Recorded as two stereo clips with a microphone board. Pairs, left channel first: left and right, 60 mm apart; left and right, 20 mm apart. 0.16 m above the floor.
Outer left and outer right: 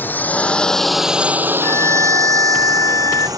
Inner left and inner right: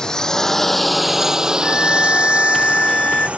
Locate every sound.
0.0 s a drone: 35° left (ahead or behind); by 3.4 s 80° right
1.6 s a violin: 60° left (ahead or behind)